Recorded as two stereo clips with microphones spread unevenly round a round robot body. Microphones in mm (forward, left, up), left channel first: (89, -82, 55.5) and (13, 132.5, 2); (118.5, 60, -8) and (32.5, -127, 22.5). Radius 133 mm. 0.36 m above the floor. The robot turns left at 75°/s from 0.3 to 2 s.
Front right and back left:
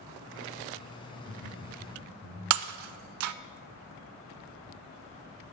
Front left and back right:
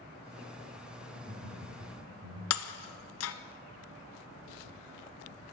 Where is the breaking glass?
100° left, 0.5 m.